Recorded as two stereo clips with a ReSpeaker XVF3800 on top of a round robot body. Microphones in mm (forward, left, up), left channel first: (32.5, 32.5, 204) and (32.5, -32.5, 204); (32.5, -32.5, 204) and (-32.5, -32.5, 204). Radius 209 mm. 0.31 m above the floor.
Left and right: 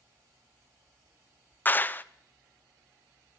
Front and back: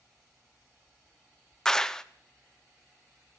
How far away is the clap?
About 0.7 m.